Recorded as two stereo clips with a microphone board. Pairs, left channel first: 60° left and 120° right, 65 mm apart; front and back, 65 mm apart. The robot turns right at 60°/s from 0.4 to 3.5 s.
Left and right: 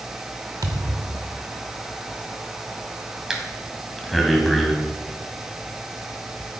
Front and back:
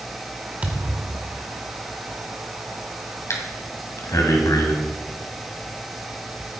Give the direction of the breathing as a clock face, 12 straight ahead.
1 o'clock.